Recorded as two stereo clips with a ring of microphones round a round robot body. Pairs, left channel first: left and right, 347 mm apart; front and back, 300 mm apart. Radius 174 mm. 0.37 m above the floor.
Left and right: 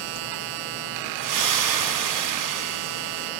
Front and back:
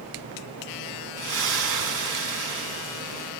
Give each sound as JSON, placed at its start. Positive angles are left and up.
{"t": 1.2, "sound": "a splash", "azimuth_deg": -130, "distance_m": 2.0}